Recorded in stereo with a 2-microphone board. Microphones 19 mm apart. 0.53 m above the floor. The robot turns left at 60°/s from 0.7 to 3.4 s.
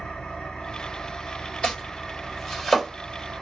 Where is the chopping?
65° left (ahead or behind), 2.0 m; by 2.9 s 5° left (ahead or behind), 2.0 m.